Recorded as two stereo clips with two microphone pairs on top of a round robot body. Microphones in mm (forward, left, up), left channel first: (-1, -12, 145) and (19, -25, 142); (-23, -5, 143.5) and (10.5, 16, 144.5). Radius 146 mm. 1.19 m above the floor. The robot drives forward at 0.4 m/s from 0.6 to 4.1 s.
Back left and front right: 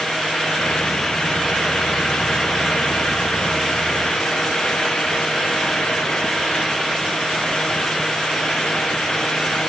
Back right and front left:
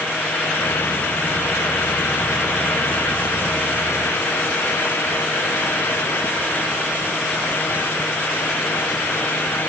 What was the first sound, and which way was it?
Only background noise.